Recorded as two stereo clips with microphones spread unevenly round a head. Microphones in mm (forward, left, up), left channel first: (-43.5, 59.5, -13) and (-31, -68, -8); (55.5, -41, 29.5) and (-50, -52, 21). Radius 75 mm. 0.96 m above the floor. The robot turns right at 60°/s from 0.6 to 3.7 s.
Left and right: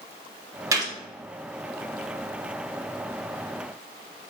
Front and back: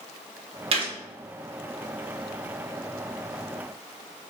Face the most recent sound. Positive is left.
turn(degrees=30)